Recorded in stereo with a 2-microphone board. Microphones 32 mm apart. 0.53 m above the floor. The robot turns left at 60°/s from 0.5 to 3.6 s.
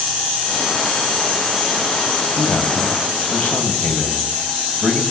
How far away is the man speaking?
About 3.5 m.